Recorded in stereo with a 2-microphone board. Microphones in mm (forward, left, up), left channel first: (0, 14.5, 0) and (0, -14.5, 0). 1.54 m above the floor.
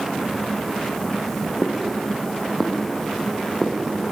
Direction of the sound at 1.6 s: 20° left (ahead or behind).